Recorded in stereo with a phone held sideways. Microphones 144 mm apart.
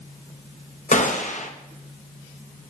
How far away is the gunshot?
About 1.3 m.